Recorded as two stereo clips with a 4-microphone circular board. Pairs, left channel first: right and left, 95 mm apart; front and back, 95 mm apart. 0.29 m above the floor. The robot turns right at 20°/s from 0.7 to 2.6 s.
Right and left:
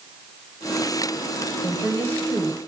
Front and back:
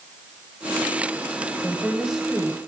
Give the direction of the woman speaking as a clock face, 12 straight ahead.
4 o'clock.